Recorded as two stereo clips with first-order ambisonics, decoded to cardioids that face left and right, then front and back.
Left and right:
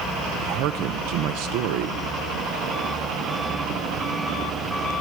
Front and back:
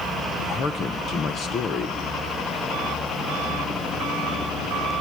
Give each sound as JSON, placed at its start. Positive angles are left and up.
{"t": 0.4, "sound": "a man speaking", "azimuth_deg": -65, "distance_m": 0.7}